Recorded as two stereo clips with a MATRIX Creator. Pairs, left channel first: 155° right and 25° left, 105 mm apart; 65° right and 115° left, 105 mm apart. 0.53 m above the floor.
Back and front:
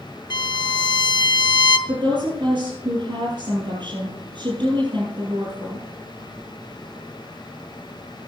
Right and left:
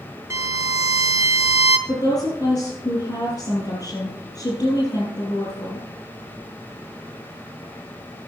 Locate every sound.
0.3 s a violin: 170° left, 0.9 m
1.9 s a woman speaking: 20° right, 7 m